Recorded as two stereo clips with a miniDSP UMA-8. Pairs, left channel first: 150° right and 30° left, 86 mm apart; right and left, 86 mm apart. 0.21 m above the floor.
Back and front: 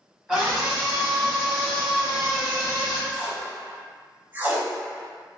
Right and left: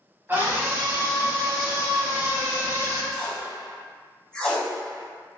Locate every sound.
0.3 s a scream: 105° left, 1.3 m
3.1 s tape being pulled: 15° right, 0.8 m